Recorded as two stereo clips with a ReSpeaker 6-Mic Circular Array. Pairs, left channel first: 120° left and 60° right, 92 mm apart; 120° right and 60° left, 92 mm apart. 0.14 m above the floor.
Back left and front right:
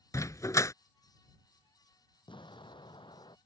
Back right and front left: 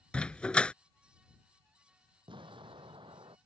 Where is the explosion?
85° left.